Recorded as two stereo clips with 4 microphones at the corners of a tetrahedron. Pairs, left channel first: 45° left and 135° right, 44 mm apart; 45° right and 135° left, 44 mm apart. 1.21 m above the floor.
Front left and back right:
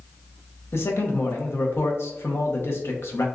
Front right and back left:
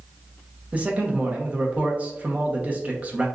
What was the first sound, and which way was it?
A man speaking, 75° left.